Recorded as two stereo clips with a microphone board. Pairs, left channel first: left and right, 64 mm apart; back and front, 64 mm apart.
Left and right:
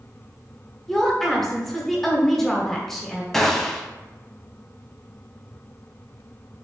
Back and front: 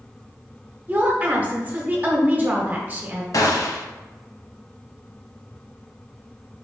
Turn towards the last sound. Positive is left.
turn(degrees=175)